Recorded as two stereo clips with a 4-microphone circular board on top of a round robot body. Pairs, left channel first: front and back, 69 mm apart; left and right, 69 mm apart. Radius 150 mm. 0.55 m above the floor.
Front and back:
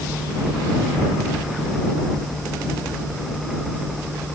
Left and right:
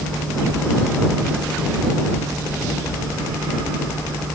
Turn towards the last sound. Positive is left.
No sound to turn to.